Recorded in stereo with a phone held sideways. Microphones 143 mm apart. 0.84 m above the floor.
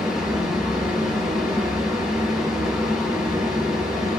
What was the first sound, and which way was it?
A fan, 5° right (ahead or behind).